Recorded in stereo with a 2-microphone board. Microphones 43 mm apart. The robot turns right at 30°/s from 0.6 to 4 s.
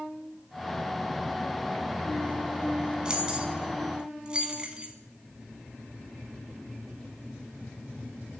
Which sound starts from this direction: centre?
Keys jangling, at 3.0 s.